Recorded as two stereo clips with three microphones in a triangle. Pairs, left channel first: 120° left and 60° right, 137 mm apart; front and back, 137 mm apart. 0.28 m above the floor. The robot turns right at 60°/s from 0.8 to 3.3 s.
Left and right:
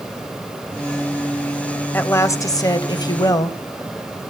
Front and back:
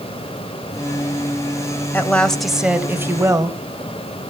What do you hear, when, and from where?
1.9 s a woman speaking: 60° left, 1.2 m; by 3.6 s 140° left, 1.2 m